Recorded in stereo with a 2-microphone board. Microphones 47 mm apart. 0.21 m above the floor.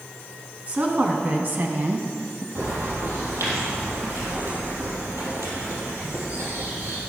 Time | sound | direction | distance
0.7 | a woman speaking | 30° right (ahead or behind) | 1.9 m
2.5 | a bird | 80° right | 4 m